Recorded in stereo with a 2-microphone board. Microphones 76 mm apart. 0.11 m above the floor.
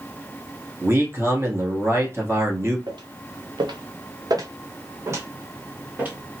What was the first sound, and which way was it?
A man speaking, 35° right (ahead or behind).